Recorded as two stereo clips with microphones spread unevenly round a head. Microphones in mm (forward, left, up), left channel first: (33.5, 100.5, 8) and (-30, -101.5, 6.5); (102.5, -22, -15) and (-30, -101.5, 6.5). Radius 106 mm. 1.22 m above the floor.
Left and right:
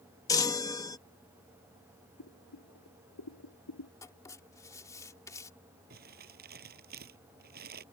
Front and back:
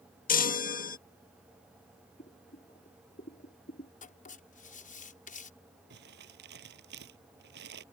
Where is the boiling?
80° left.